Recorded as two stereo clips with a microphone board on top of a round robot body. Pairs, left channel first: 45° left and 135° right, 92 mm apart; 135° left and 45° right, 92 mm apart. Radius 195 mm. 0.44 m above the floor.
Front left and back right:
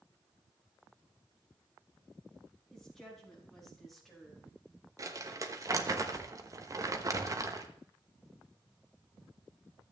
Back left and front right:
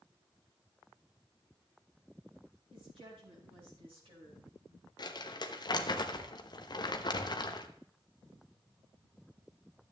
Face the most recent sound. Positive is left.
turn(degrees=170)